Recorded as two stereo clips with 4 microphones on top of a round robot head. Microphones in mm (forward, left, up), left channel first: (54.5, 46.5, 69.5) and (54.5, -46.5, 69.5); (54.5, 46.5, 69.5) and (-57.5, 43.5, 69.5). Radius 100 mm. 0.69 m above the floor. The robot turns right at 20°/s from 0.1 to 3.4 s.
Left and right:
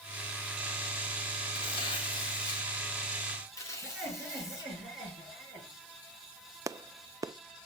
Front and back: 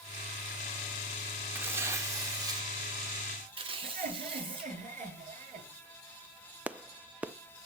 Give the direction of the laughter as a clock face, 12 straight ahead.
6 o'clock.